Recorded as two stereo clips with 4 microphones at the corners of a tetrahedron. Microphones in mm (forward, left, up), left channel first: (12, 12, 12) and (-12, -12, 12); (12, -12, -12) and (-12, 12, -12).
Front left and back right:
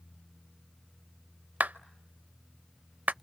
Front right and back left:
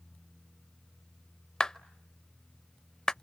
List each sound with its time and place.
1.6 s a clap: 110° right, 0.6 m